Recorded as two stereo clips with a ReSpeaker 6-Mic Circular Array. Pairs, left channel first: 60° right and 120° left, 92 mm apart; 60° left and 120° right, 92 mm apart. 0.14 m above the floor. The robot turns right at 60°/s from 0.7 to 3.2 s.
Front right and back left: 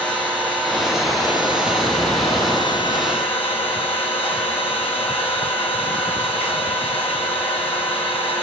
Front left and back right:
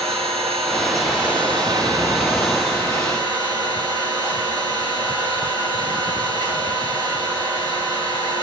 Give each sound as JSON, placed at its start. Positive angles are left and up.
{"t": 0.0, "sound": "an engine running", "azimuth_deg": -145, "distance_m": 9.5}